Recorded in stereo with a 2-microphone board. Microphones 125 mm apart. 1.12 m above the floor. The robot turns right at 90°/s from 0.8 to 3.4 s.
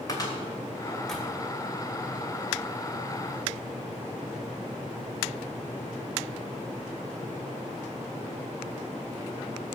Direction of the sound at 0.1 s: 30° left (ahead or behind).